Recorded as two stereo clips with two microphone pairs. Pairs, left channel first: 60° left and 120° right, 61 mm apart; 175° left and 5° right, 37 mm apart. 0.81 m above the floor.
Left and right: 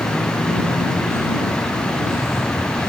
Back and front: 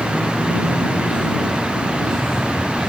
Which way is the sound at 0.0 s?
100° left.